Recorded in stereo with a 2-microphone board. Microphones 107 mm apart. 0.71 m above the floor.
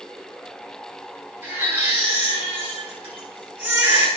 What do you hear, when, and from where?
1.4 s a baby crying: 20° right (ahead or behind), 6 m